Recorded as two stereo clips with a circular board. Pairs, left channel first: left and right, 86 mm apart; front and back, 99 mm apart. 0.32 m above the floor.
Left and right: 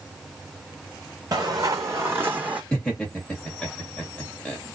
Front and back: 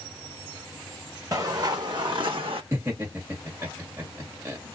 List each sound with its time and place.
1.3 s footsteps: 130° right, 1.3 m; by 2.6 s 165° right, 1.0 m
2.7 s laughter: 155° left, 1.5 m